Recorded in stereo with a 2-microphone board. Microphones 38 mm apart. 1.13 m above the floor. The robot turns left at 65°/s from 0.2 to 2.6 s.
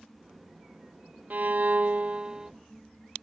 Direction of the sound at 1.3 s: 80° right.